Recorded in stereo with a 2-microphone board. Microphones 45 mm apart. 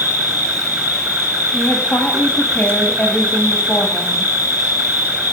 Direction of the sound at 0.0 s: 45° right (ahead or behind).